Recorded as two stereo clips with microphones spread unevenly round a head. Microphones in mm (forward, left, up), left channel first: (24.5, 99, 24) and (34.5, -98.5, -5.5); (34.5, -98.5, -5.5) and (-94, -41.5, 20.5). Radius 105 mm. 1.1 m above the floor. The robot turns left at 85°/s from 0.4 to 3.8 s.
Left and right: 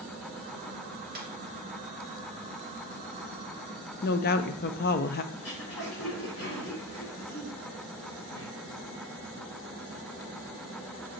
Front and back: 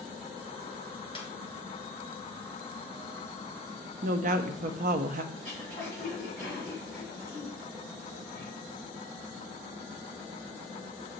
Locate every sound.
1.1 s a snare drum: 65° right, 1.5 m; by 1.3 s 75° right, 1.5 m
4.0 s a woman speaking: 130° left, 0.5 m
5.3 s throat clearing: 105° left, 4 m